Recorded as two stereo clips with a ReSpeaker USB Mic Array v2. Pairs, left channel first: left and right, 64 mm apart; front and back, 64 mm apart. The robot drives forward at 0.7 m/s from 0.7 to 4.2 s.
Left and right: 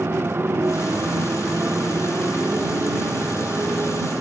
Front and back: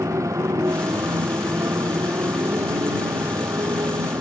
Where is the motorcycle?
145° right; by 4.2 s 150° right.